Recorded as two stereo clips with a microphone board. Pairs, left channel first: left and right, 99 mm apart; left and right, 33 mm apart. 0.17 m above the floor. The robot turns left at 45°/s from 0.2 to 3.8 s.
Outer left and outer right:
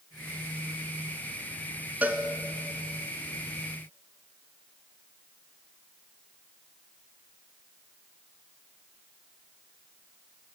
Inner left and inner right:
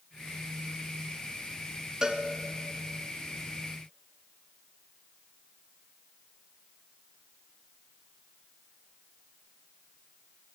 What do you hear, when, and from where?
2.0 s a cowbell: 15° right (ahead or behind), 0.9 m; by 2.2 s 25° right (ahead or behind), 0.9 m